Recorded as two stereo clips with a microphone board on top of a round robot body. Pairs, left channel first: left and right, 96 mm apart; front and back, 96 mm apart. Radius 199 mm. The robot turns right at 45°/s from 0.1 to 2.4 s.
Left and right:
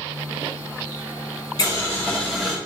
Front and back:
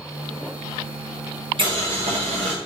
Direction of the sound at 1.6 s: 145° left.